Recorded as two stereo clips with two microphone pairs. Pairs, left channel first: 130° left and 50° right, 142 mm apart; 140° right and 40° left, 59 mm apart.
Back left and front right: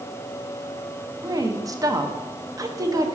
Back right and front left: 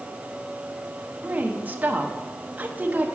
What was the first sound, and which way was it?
A woman speaking, 5° right.